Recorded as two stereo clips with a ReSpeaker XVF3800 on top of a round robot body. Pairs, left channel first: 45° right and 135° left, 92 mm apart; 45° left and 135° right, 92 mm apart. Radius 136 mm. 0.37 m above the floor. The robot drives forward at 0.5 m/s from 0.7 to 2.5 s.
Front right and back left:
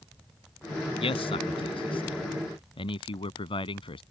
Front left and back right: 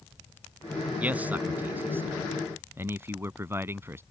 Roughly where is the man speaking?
Ahead right.